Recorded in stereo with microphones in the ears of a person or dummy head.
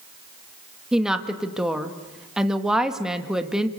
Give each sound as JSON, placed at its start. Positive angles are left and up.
{"t": 0.9, "sound": "a woman speaking", "side_deg": 0, "distance_m": 1.7}